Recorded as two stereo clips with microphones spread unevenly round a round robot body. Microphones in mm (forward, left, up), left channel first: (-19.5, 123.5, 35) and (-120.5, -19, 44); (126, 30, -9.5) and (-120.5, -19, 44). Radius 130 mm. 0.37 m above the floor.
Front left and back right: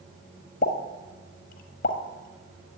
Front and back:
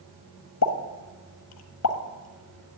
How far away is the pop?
About 1.3 m.